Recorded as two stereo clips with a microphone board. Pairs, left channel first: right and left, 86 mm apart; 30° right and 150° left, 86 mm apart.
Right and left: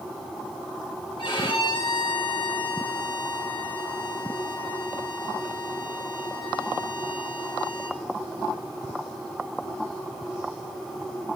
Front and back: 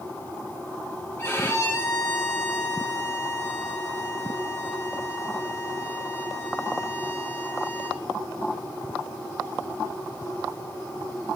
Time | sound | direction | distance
1.2 | a violin | 95° right | 3 m